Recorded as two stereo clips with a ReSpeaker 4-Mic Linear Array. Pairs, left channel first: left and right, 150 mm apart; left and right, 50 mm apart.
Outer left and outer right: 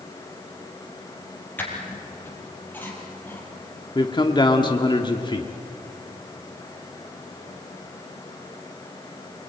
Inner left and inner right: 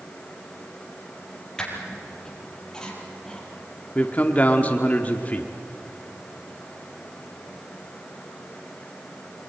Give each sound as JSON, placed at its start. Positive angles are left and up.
{"t": 1.6, "sound": "a squeak", "side_deg": 15, "distance_m": 4.5}
{"t": 4.0, "sound": "a man speaking", "side_deg": 30, "distance_m": 1.4}